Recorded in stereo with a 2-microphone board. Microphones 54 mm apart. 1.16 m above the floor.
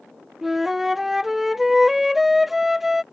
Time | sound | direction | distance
0.4 | a flute | 5° right (ahead or behind) | ?